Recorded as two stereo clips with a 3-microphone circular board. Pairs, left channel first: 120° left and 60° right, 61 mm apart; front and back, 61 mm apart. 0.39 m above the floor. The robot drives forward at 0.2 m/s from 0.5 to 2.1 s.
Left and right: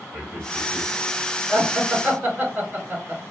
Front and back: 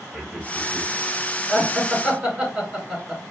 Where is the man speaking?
95° right, 1.7 m; by 0.9 s 100° right, 1.7 m.